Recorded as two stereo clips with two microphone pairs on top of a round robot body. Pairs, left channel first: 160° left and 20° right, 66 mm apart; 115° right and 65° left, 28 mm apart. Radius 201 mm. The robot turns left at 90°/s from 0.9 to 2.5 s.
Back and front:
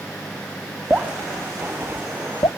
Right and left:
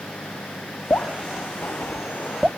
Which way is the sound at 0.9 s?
90° right.